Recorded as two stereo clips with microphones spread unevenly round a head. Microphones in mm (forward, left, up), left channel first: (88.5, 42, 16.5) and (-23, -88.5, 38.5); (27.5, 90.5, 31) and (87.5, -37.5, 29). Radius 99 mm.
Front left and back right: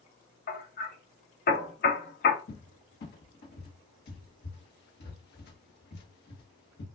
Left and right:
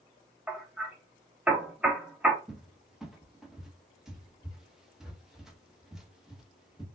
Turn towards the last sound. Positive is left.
turn(degrees=20)